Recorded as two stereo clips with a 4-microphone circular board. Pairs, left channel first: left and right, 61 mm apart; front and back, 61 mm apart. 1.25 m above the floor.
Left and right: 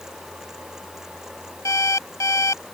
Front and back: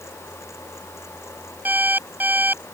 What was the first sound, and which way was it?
An alarm clock, 120° left.